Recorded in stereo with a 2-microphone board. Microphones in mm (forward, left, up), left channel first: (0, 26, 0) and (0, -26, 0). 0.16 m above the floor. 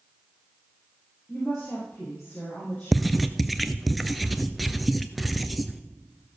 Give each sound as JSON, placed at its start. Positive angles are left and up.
{"t": 1.3, "sound": "a woman speaking", "side_deg": 25, "distance_m": 5.5}
{"t": 2.9, "sound": "writing", "side_deg": 0, "distance_m": 0.6}